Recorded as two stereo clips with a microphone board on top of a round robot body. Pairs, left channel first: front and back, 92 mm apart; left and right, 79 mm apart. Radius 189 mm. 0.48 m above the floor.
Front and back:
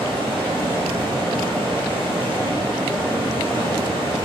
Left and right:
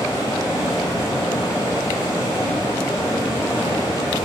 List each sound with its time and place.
0.0 s running water: 140° left, 2.5 m